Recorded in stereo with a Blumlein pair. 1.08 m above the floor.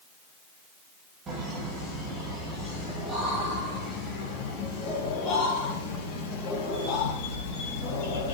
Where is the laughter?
20° right, 3.5 m; by 8.3 s 35° left, 5 m.